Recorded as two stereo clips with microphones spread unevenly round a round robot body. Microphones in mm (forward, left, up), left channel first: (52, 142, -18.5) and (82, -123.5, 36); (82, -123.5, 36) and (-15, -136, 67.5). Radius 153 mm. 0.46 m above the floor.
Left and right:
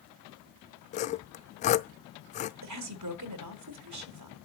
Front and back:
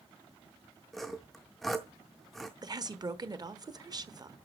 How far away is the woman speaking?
About 1.3 m.